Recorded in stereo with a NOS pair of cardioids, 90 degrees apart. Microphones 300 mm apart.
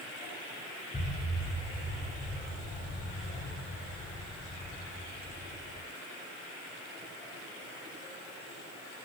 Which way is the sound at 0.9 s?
15° left.